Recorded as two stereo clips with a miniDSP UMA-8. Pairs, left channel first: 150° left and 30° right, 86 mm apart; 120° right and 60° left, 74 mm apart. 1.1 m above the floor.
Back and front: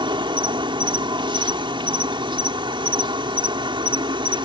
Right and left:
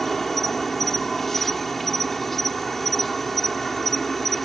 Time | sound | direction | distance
0.0 | an insect | 35° right | ?